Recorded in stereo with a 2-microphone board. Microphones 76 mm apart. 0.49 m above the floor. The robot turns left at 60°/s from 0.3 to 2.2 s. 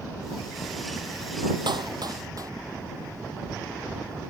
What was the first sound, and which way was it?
A clap, 85° right.